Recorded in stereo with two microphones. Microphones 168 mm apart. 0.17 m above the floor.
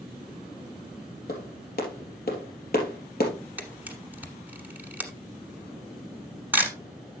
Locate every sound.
1.3 s a clap: 65° left (ahead or behind), 3 m
3.6 s a camera shutter: 10° right (ahead or behind), 1.3 m